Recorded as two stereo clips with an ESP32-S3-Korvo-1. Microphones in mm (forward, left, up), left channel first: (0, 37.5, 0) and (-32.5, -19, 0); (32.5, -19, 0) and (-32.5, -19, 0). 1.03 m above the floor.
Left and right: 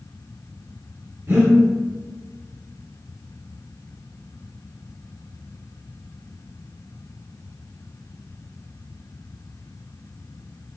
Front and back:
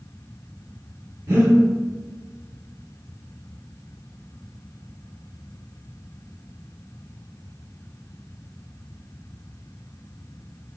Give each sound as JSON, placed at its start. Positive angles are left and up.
{"t": 1.3, "sound": "breathing", "azimuth_deg": -155, "distance_m": 1.9}